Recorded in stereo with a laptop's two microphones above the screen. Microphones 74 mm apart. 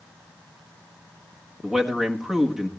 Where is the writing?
No writing in this recording.